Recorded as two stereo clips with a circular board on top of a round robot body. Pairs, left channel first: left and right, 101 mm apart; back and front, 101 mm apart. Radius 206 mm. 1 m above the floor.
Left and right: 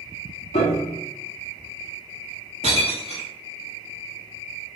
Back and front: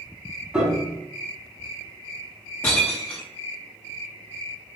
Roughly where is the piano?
Left.